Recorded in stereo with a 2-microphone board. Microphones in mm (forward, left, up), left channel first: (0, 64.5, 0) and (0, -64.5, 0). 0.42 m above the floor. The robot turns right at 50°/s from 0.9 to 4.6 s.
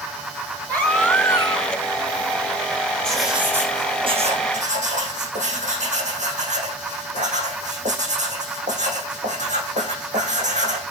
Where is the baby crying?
10° left, 2.5 m; by 1.8 s 50° left, 2.5 m.